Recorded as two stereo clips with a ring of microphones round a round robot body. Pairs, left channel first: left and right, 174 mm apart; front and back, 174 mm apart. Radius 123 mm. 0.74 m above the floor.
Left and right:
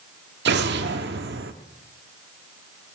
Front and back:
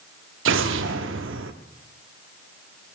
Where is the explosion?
140° right, 0.6 m.